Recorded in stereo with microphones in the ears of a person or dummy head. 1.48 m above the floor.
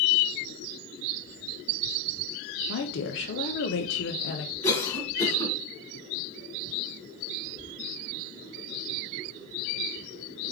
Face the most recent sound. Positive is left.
turn(degrees=30)  # may be behind; listen again after turning